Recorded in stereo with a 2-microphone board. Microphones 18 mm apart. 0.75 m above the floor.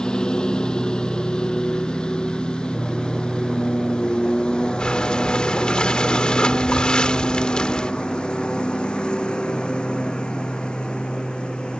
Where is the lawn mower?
55° left (ahead or behind); by 11.8 s 75° left (ahead or behind).